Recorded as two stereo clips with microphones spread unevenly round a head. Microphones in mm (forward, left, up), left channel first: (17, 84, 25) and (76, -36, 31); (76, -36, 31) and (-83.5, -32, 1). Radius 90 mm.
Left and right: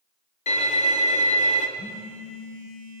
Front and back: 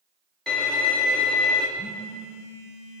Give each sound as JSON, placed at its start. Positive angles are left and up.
{"t": 0.5, "sound": "a violin", "azimuth_deg": 90, "distance_m": 1.7}
{"t": 1.8, "sound": "a phone buzzing", "azimuth_deg": 75, "distance_m": 3.0}